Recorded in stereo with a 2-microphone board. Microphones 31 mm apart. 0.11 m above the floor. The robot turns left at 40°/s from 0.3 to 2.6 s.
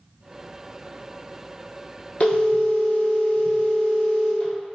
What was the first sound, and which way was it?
A phone ringing, 40° left (ahead or behind).